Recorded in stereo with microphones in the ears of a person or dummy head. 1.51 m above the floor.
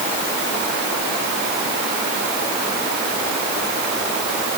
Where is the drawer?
I don't hear a drawer.